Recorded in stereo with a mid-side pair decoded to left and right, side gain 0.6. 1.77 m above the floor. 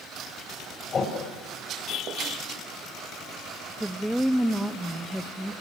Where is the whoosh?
35° left, 7.5 m.